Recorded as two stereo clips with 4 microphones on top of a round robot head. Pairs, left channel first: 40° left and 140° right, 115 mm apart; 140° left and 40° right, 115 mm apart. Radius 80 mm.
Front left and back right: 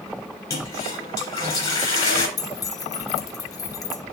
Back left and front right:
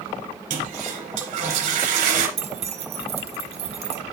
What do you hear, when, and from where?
0.5 s a toilet flushing: 20° right, 3 m
2.4 s keys jangling: 15° right, 1.0 m